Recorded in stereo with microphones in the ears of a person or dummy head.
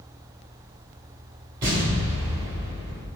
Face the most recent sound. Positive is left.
turn(degrees=-20)  # may be behind; listen again after turning